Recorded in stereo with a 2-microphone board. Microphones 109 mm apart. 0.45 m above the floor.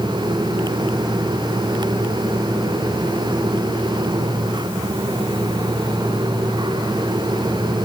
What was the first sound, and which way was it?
Only background noise.